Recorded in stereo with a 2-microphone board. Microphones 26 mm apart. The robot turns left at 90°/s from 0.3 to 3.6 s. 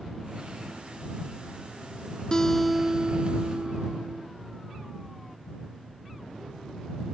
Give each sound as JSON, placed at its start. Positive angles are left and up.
{"t": 2.3, "sound": "a guitar", "azimuth_deg": 35}